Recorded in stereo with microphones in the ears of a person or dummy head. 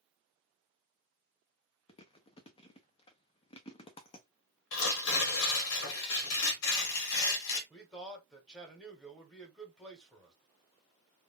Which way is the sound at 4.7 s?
85° left.